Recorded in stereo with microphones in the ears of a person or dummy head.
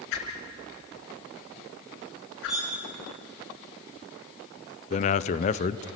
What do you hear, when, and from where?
0.1 s a whoosh: 65° left (ahead or behind), 4.5 m
2.5 s cutlery clinking: centre (ahead or behind), 7.5 m
4.9 s a man speaking: 35° left (ahead or behind), 0.6 m